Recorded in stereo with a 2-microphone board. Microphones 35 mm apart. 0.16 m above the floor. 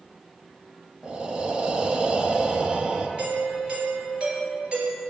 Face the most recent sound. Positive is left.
turn(degrees=-30)  # may be behind; listen again after turning